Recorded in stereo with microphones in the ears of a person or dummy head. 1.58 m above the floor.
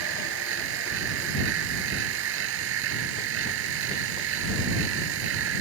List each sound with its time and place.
0.0 s a machine running: 70° right (ahead or behind)